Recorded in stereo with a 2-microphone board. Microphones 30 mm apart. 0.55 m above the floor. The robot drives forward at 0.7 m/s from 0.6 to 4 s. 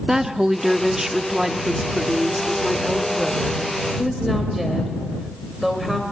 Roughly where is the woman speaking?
Centre.